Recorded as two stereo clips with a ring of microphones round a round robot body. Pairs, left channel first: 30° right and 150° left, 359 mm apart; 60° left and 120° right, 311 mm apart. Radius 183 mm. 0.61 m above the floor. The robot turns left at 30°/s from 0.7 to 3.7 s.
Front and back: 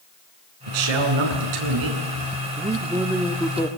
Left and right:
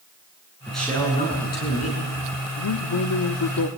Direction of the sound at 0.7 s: 150° left.